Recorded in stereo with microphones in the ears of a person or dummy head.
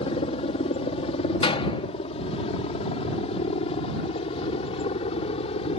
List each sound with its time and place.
0.0 s a helicopter: 35° left (ahead or behind); by 5.8 s 40° left (ahead or behind)
1.4 s a door slam: 25° left (ahead or behind)